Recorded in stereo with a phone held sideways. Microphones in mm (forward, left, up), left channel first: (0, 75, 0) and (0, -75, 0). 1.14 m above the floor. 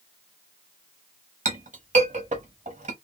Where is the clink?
55° right (ahead or behind), 1.0 m.